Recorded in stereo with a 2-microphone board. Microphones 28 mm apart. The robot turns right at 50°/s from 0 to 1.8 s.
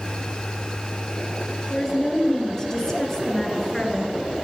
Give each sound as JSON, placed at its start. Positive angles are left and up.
{"t": 1.7, "sound": "a woman speaking", "side_deg": 25, "distance_m": 1.8}